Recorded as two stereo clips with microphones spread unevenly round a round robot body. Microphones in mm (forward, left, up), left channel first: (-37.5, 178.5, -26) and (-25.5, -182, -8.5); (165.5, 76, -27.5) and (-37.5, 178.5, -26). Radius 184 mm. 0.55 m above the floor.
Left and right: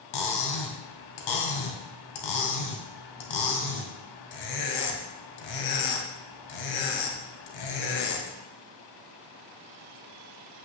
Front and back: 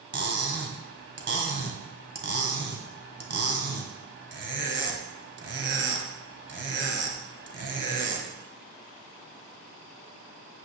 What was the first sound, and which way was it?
Cutlery clinking, 115° left.